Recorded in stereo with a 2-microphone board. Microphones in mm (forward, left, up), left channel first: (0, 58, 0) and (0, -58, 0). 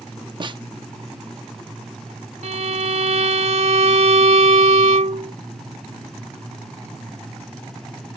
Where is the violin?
75° right (ahead or behind).